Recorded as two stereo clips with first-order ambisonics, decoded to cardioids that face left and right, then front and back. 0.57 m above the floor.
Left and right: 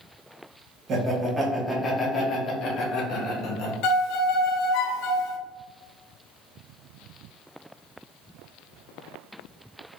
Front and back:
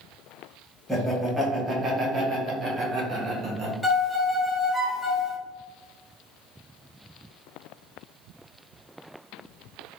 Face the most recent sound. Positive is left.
turn(degrees=85)